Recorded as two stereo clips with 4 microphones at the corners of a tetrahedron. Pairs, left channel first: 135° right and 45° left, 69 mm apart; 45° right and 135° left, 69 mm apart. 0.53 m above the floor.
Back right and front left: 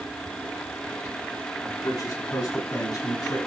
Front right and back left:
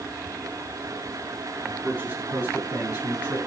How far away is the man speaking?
About 6.5 m.